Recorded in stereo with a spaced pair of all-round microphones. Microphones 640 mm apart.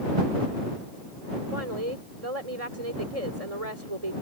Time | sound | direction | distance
1.5 | a woman speaking | 60° right (ahead or behind) | ?